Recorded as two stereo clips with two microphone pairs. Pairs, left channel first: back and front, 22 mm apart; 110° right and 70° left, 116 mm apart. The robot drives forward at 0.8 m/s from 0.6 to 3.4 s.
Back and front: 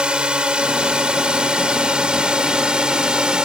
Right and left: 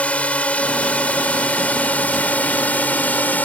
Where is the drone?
30° right; by 3.5 s 35° right.